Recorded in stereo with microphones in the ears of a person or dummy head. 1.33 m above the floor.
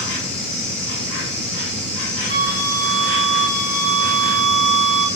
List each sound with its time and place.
0.0 s an insect: 55° left (ahead or behind), 1.6 m
2.3 s a flute: 35° left (ahead or behind), 1.5 m